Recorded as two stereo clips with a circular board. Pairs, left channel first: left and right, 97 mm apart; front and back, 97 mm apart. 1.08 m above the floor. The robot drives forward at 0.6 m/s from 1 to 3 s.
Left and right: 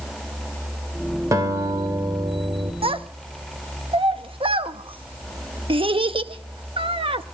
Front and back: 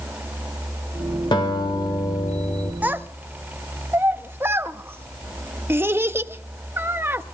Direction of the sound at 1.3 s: 35° right.